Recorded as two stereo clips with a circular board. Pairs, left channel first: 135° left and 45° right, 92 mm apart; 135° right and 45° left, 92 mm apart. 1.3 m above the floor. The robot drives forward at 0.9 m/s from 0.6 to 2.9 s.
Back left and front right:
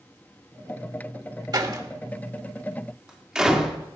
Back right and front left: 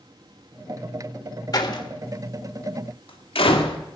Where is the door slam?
90° right, 1.6 m; by 3.8 s 130° right, 2.0 m.